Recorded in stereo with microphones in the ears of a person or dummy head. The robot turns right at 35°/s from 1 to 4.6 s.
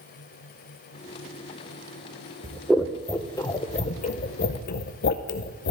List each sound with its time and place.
2.4 s scissors: 10° right (ahead or behind), 0.7 m; by 5.7 s 60° left (ahead or behind), 0.7 m